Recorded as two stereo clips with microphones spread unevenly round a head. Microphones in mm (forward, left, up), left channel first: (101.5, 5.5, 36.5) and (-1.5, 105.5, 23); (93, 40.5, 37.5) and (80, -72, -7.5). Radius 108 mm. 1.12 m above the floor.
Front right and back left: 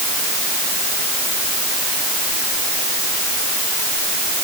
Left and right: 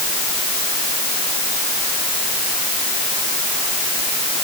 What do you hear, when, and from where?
Only background noise.